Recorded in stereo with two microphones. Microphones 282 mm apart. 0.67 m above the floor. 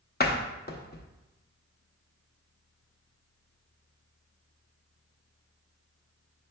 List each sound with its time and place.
0.2 s a door slam: 35° left (ahead or behind), 0.5 m